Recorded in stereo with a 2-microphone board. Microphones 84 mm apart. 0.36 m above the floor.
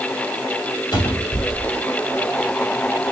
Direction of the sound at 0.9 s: 50° left (ahead or behind).